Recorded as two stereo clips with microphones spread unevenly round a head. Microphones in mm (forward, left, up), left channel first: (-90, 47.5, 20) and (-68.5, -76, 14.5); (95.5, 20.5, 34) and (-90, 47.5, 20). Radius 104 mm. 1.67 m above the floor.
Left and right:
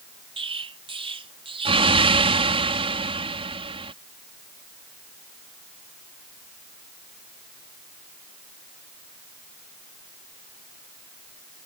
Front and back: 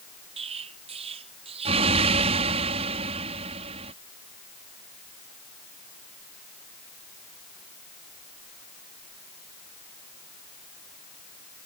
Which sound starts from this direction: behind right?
An explosion, at 0.4 s.